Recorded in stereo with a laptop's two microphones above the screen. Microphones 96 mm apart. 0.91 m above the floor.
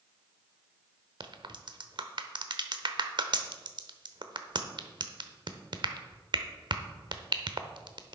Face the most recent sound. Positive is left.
turn(degrees=-55)  # may be behind; listen again after turning